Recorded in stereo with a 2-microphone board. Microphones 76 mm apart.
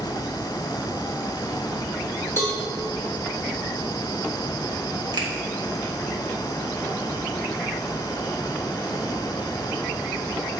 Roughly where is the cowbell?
Left.